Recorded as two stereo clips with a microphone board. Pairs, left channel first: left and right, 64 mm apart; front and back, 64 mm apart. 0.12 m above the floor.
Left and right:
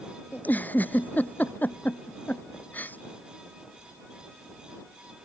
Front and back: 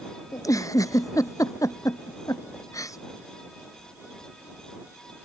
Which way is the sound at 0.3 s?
25° left.